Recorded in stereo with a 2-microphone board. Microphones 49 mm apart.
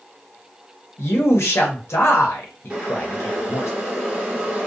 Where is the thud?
No thud in this recording.